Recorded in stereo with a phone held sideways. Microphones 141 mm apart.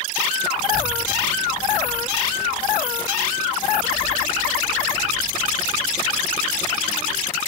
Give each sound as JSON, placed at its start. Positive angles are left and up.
{"t": 0.6, "sound": "a child speaking", "side_deg": 55, "distance_m": 4.0}